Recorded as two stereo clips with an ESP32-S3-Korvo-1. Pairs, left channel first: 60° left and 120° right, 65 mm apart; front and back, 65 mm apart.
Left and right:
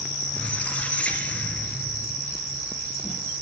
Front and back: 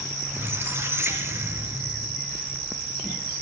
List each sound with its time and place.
0.3 s a squeak: 130° left, 3.5 m